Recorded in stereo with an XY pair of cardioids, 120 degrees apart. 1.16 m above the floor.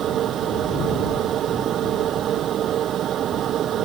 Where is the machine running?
55° right.